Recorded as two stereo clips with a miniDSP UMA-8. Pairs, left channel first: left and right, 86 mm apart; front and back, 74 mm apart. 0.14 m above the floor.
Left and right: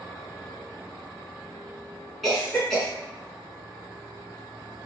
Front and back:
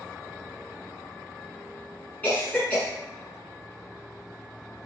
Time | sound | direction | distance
2.2 | a cough | 5° left | 1.1 m